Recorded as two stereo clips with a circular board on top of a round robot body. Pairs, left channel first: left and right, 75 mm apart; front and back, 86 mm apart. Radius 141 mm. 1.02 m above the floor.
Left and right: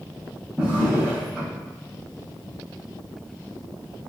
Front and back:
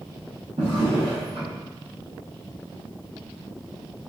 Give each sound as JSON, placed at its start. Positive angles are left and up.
{"t": 0.6, "sound": "a drawer", "azimuth_deg": 165, "distance_m": 0.5}